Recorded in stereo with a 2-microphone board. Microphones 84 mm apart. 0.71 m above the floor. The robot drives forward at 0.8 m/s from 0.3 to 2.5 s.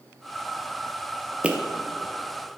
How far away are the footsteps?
About 0.7 m.